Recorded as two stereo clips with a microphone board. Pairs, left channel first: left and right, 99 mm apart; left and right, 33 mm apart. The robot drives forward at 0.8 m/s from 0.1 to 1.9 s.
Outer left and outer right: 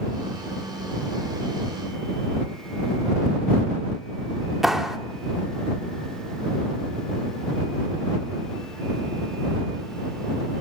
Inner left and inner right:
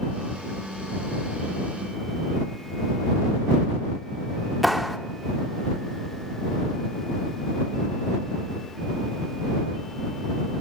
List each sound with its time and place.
4.6 s a clap: 5° right (ahead or behind), 1.4 m